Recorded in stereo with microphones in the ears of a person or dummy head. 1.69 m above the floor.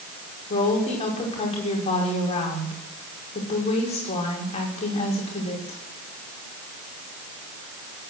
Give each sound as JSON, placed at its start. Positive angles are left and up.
{"t": 0.5, "sound": "a woman speaking", "side_deg": 30, "distance_m": 5.0}